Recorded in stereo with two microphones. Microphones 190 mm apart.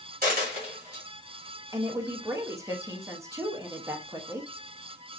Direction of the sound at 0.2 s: 55° right (ahead or behind).